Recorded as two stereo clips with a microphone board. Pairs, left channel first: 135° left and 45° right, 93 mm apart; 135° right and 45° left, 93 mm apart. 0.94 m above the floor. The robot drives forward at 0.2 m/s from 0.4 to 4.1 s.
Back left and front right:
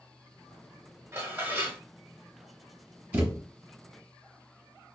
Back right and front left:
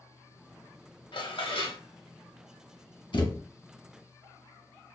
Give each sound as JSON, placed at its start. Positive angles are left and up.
{"t": 1.1, "sound": "dishes clattering", "azimuth_deg": -110, "distance_m": 0.7}
{"t": 3.1, "sound": "a thud", "azimuth_deg": -115, "distance_m": 0.9}